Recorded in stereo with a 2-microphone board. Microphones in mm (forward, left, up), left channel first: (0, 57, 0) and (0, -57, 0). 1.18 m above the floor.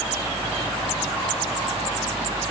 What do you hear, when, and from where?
Only background noise.